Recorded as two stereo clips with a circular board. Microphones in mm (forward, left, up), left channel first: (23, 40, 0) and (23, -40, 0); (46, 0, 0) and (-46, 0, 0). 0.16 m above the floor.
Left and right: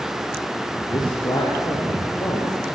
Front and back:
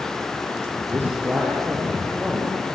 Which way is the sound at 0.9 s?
115° left.